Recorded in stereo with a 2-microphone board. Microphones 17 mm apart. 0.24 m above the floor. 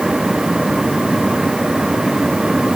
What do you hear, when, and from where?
Only background noise.